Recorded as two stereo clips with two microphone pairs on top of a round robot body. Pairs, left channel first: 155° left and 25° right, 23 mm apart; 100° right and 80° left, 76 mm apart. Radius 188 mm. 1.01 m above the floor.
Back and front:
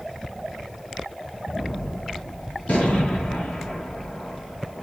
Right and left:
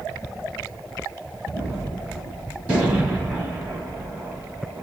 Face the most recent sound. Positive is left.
turn(degrees=150)